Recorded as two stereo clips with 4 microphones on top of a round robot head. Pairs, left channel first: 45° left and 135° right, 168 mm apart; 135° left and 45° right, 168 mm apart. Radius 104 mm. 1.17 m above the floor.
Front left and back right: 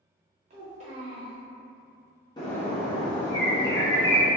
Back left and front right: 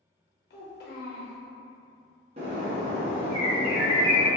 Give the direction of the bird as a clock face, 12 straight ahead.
12 o'clock.